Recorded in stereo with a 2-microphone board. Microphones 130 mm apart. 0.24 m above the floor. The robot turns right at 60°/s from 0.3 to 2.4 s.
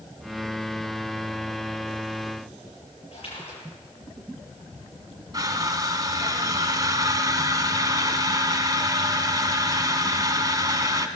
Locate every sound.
3.1 s a splash: 50° left (ahead or behind), 6.5 m
5.3 s crushing: 30° right (ahead or behind), 1.1 m